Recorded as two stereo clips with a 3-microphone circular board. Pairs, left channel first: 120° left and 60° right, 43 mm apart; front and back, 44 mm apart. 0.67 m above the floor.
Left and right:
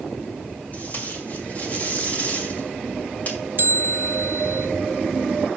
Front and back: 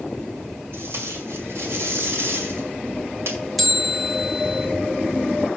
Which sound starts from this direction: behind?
Tape being pulled, at 0.7 s.